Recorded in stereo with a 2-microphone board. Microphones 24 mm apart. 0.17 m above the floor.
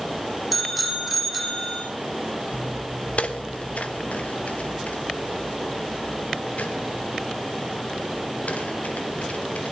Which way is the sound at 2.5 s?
55° left (ahead or behind).